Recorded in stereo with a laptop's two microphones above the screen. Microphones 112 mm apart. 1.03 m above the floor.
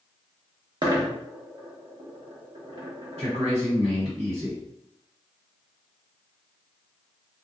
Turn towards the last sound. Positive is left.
turn(degrees=-70)  # may be behind; listen again after turning